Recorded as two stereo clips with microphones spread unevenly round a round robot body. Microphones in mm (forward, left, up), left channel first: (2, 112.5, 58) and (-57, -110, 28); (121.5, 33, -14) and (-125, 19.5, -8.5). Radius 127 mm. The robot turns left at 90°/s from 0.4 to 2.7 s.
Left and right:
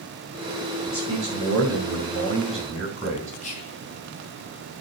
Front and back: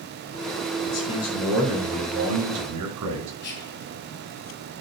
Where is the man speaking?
15° right, 4.5 m; by 3.3 s straight behind, 4.5 m.